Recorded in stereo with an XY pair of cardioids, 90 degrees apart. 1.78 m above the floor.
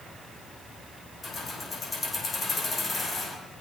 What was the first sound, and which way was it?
Keys jangling, 45° left.